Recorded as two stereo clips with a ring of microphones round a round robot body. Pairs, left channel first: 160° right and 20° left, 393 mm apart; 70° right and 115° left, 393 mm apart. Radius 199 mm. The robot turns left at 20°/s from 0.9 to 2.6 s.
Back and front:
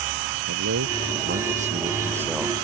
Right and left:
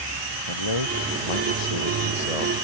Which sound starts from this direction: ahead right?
A man speaking, at 0.5 s.